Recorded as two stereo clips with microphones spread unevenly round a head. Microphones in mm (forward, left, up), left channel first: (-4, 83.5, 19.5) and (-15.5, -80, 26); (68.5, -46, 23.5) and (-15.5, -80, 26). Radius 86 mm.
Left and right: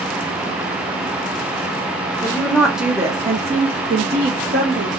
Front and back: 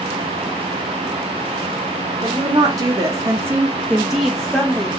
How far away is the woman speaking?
About 0.7 m.